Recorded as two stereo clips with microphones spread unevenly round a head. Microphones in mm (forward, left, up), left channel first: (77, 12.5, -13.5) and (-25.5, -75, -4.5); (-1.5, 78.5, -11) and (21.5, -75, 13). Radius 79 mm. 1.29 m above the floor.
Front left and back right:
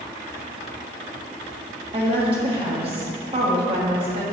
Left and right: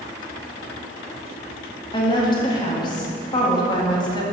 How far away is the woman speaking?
About 1.5 m.